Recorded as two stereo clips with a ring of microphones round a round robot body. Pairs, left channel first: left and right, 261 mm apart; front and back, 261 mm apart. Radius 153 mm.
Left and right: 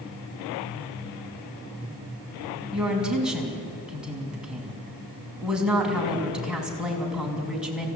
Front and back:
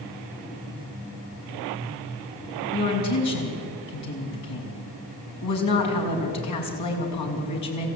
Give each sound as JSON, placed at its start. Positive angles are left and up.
{"t": 2.7, "sound": "a woman speaking", "azimuth_deg": -5, "distance_m": 5.5}